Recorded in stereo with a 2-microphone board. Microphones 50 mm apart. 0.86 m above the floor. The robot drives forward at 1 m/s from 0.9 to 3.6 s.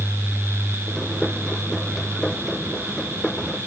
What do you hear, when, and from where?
Only background noise.